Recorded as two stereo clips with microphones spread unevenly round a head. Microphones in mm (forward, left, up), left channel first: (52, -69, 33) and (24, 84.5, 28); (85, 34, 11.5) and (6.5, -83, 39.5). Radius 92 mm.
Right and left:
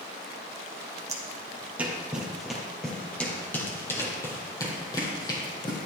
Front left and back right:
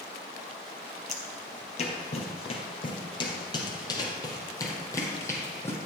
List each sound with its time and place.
1.1 s footsteps: 35° left, 2 m; by 5.8 s 20° right, 3 m